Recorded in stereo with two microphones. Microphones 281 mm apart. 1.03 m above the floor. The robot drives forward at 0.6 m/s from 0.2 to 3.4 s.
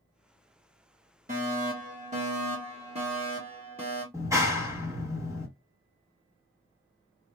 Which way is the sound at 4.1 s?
10° right (ahead or behind).